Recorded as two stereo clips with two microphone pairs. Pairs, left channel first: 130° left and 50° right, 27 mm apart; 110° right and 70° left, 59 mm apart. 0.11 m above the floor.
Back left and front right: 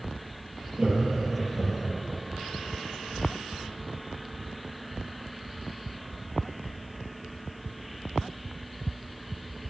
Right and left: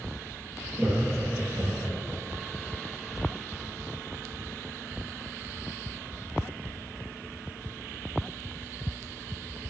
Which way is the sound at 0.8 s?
Straight ahead.